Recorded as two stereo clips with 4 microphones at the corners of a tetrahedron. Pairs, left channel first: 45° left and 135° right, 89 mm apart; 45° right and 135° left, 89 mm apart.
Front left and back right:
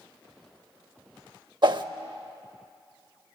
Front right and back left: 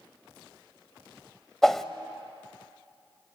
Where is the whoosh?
130° right, 0.6 m.